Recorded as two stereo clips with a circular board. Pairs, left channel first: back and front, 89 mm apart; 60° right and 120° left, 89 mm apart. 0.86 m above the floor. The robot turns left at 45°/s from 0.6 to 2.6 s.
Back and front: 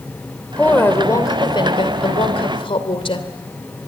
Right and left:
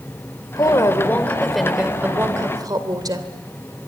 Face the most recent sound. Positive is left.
turn(degrees=165)